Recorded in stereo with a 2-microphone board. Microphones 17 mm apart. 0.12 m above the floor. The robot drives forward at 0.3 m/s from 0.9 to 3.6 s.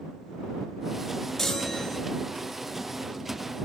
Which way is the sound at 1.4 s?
15° left (ahead or behind).